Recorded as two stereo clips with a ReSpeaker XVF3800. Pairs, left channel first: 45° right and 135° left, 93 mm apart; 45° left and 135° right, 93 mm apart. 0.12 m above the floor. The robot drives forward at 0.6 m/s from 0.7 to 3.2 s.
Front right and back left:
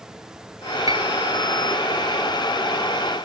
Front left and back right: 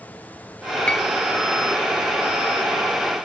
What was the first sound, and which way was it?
A piano, 120° left.